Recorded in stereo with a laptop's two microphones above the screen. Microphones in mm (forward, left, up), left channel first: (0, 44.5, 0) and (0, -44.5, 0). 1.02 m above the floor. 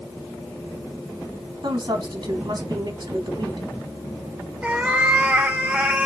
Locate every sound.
1.6 s a woman speaking: 55° right (ahead or behind), 1.2 m
4.6 s a cat meowing: 15° right (ahead or behind), 0.8 m